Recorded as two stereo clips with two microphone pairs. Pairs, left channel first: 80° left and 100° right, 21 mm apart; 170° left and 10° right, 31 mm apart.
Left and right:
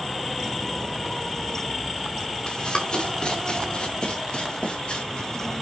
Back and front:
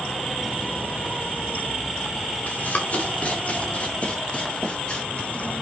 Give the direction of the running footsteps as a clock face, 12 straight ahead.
8 o'clock.